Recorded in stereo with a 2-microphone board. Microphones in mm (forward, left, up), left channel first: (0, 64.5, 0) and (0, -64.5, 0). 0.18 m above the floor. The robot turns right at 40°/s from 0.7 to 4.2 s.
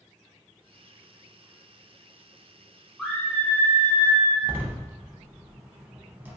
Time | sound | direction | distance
3.0 | a scream | centre (ahead or behind) | 1.1 m
4.4 | a door slam | 15° right (ahead or behind) | 0.7 m